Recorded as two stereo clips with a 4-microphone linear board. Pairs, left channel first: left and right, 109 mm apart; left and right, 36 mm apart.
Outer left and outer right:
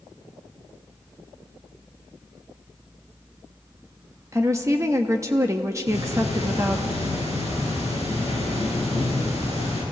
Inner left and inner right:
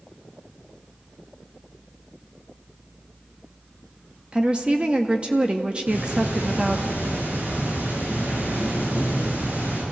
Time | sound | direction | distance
4.3 | a woman speaking | 30° right (ahead or behind) | 1.0 m
5.9 | ticking | 75° right (ahead or behind) | 9 m